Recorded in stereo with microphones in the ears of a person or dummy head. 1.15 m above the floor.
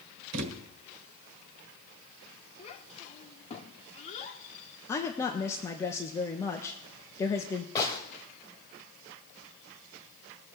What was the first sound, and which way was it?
A thud, 60° right (ahead or behind).